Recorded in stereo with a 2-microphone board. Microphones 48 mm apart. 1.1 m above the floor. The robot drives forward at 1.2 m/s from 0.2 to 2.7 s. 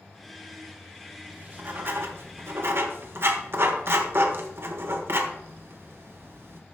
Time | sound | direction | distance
1.3 | writing | 35° right (ahead or behind) | 1.9 m